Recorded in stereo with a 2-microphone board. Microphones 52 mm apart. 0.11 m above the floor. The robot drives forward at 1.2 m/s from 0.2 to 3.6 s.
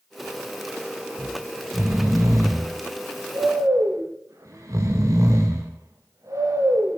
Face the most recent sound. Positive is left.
turn(degrees=-85)